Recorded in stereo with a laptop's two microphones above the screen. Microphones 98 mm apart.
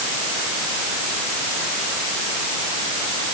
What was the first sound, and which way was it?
Only background noise.